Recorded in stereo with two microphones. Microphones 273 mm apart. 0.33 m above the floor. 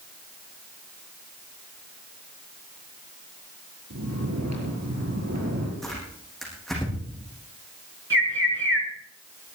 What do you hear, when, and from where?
3.9 s snoring: 75° right (ahead or behind), 7 m
5.8 s tearing paper: centre (ahead or behind), 7.5 m
8.1 s a bird: 45° right (ahead or behind), 3 m